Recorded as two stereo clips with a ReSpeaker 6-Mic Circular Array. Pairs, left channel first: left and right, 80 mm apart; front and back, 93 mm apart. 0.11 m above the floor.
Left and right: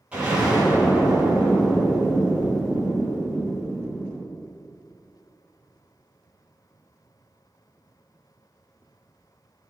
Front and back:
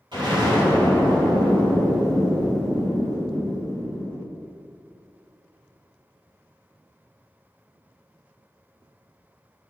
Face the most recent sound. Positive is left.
turn(degrees=-165)